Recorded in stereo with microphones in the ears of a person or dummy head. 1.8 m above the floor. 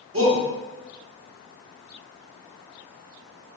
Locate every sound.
0.1 s a shout: 20° right (ahead or behind), 2 m